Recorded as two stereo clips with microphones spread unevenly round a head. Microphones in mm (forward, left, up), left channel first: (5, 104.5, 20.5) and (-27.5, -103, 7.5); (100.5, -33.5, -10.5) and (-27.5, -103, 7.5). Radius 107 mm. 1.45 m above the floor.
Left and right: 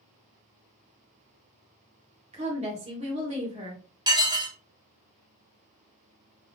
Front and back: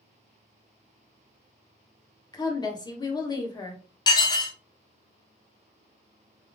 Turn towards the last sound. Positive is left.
turn(degrees=-30)